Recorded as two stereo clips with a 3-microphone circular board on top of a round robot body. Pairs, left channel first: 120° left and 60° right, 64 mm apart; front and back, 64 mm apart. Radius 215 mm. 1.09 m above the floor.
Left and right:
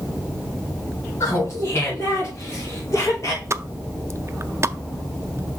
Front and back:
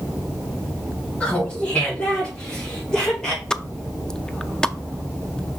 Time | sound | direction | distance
1.2 | laughter | 70° left | 4 m
3.5 | a pop | 75° right | 0.7 m